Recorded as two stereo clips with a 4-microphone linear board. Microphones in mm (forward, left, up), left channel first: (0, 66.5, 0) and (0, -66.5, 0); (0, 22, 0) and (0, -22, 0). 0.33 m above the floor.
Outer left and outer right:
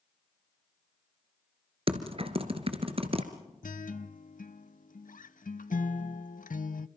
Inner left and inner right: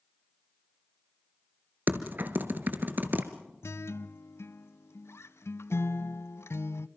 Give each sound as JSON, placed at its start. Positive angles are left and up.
{"t": 1.9, "sound": "typing on a keyboard", "side_deg": -45, "distance_m": 1.7}
{"t": 3.6, "sound": "a guitar", "side_deg": 80, "distance_m": 0.7}